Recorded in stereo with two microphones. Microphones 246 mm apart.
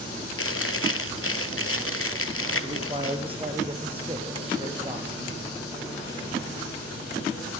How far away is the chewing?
About 1.3 m.